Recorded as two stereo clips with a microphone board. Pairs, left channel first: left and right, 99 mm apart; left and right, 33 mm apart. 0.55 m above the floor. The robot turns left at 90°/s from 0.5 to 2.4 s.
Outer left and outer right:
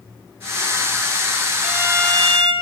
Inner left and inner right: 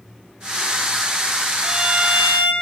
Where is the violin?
Straight ahead, 2 m; by 2.5 s 70° right, 2 m.